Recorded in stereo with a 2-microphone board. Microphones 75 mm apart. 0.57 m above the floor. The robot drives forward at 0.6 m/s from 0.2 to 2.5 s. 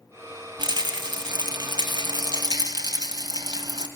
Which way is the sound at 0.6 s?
70° right (ahead or behind).